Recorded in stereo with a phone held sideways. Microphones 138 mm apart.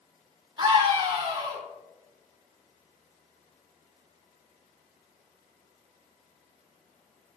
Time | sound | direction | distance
0.6 | a scream | 35° right (ahead or behind) | 3 m